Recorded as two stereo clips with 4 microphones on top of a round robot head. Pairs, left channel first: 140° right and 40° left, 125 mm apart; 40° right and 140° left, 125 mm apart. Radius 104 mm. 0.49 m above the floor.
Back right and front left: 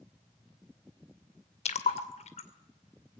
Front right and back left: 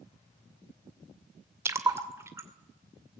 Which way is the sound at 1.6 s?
155° right.